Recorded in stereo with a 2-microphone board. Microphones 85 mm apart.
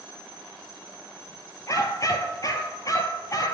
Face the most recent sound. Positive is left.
turn(degrees=45)  # may be behind; listen again after turning